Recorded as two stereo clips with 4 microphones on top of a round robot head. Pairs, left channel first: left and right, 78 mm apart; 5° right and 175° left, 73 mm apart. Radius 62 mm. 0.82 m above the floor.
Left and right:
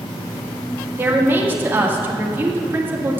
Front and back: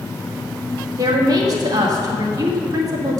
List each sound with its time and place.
1.0 s a woman speaking: 150° right, 1.9 m